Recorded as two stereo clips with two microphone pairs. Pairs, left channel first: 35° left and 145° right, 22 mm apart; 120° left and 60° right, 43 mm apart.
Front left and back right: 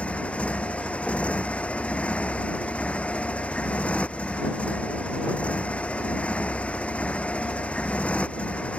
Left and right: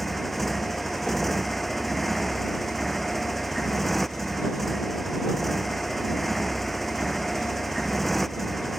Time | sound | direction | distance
0.0 | a motorcycle | 35° left | ?